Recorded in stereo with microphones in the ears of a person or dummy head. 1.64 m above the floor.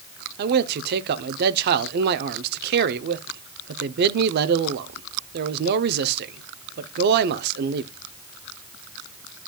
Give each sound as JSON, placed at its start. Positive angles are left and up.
{"t": 0.4, "sound": "a man speaking", "side_deg": -55, "distance_m": 0.7}